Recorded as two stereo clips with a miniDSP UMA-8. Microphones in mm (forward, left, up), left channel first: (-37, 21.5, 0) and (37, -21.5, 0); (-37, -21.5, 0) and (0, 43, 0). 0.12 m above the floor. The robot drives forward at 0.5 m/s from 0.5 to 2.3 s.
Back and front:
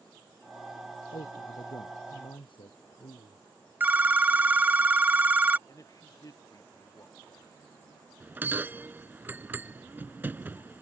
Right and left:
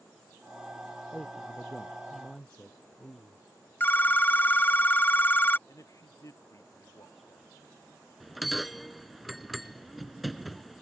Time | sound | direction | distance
1.1 | a man speaking | 165° left | ?
3.8 | a phone ringing | 80° right | ?
5.7 | a man speaking | 160° right | ?
8.2 | a bell | 30° right | ?